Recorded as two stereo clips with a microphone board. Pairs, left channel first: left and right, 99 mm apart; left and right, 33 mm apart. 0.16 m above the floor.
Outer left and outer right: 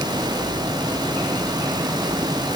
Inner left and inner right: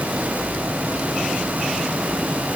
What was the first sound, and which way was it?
Only background noise.